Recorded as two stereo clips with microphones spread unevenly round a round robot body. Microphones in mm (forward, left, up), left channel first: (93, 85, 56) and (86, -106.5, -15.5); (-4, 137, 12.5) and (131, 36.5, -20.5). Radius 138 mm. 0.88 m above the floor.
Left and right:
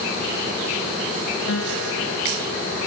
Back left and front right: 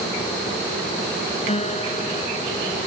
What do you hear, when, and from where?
1.5 s a guitar: 95° left